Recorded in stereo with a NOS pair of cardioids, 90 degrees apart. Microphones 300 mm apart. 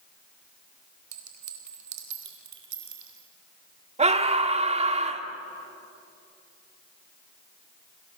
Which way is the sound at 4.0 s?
20° right.